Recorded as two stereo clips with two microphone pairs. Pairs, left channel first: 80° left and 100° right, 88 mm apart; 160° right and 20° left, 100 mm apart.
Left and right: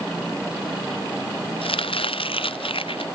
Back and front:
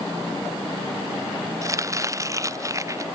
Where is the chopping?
80° left.